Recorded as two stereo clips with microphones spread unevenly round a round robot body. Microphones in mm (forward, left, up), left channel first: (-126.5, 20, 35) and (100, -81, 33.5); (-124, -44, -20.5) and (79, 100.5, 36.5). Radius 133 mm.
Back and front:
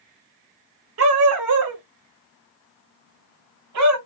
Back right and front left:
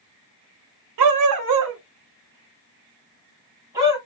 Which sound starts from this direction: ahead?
A dog barking, at 1.0 s.